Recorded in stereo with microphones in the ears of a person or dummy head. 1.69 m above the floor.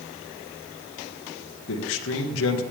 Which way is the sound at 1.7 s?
85° left.